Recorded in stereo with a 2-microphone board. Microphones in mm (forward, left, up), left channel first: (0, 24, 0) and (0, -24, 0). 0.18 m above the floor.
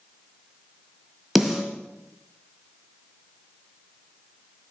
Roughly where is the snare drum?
Centre.